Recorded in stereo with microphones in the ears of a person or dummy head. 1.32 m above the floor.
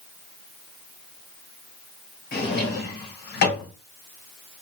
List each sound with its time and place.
2.3 s a drawer: 55° left (ahead or behind), 2 m